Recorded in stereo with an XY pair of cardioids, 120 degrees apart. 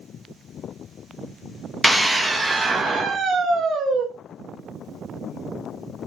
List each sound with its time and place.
1.8 s a scream: straight ahead, 1.2 m; by 4.1 s 50° right, 1.5 m